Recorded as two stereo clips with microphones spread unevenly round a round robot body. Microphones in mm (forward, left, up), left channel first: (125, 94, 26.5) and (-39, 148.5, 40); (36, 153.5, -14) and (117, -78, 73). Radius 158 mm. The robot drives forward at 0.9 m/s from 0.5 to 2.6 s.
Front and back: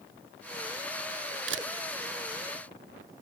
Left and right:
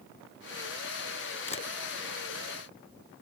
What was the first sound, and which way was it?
A camera shutter, straight behind.